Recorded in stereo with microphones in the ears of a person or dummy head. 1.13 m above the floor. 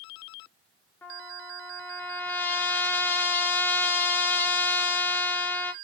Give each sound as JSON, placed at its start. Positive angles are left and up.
{"t": 1.0, "sound": "a trumpet", "side_deg": 10, "distance_m": 0.6}